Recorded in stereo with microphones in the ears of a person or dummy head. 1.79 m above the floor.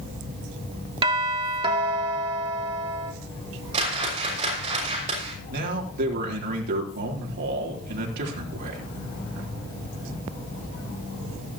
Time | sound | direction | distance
1.0 | a doorbell | 25° right (ahead or behind) | 1.2 m
3.7 | a whoosh | 35° right (ahead or behind) | 6 m
5.5 | a man speaking | 55° right (ahead or behind) | 3.5 m